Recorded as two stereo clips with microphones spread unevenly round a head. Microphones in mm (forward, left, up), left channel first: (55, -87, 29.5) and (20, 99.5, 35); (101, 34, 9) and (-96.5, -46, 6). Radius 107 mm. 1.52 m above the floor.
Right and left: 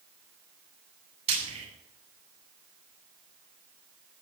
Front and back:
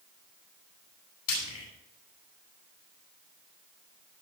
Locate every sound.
1.3 s frying: 45° left, 9.5 m